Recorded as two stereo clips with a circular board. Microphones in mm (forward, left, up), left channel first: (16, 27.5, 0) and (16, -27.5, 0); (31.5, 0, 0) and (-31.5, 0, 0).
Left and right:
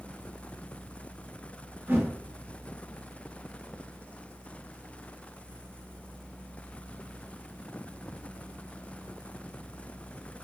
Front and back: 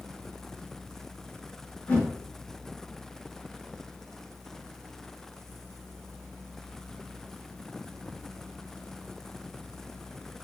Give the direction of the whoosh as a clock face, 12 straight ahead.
2 o'clock.